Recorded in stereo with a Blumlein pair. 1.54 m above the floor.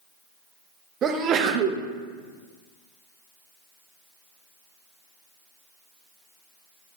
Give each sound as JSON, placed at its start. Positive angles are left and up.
{"t": 1.0, "sound": "a sneeze", "azimuth_deg": -25, "distance_m": 0.8}